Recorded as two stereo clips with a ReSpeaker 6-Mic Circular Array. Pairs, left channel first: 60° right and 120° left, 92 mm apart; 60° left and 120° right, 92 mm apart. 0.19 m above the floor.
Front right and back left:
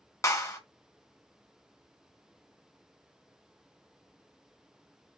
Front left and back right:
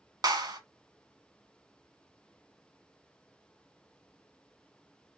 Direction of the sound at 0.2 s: 100° right.